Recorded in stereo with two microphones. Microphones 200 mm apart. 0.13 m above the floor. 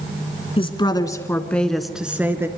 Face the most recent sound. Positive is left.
turn(degrees=-10)  # may be behind; listen again after turning